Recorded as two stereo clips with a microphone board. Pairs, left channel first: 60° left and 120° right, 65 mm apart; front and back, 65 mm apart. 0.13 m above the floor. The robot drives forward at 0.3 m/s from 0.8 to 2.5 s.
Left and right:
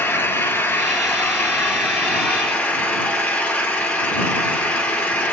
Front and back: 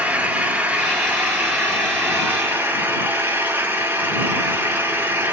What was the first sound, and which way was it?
An engine running, 120° left.